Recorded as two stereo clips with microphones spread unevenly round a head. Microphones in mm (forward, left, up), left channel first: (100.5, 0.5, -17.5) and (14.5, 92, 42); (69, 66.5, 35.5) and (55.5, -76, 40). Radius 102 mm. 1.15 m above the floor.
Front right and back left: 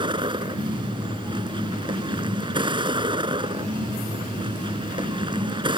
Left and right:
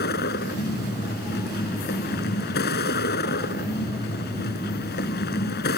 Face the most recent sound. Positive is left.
turn(degrees=85)